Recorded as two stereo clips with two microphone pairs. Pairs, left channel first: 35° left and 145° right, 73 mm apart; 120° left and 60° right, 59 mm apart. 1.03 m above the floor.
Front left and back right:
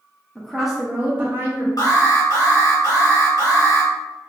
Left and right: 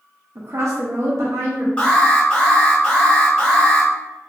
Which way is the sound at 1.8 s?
55° left.